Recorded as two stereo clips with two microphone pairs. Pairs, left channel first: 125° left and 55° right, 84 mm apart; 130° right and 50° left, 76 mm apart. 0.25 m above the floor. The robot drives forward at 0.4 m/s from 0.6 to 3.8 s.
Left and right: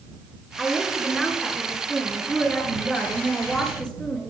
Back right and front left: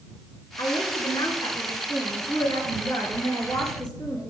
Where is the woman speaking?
150° right, 3 m; by 4.3 s 160° right, 4 m.